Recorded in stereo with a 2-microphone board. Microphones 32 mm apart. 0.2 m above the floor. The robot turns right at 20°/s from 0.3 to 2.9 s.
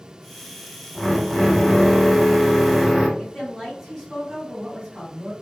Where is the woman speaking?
10° right (ahead or behind), 1.6 m.